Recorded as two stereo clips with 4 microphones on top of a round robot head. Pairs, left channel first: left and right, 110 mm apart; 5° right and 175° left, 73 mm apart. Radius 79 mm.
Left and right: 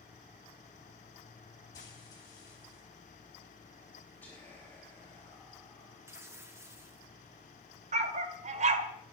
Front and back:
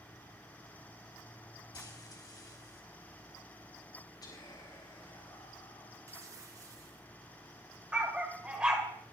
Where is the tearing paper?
150° right, 1.8 m.